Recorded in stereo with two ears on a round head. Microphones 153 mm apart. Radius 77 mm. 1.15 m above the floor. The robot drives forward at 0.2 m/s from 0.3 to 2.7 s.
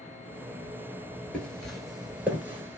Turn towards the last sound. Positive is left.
turn(degrees=-15)  # may be behind; listen again after turning